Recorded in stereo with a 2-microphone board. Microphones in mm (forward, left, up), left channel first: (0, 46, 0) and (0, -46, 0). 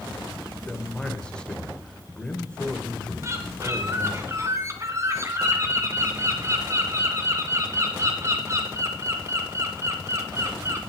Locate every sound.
0.7 s a man speaking: 10° left (ahead or behind), 1.9 m
3.2 s a bird: 30° right (ahead or behind), 2 m